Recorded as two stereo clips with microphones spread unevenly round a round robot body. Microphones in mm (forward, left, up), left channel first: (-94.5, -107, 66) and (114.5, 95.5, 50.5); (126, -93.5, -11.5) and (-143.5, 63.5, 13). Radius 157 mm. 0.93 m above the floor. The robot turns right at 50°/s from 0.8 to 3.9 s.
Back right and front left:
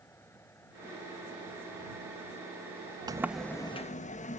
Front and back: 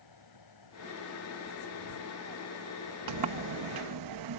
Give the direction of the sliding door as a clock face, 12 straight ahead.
8 o'clock.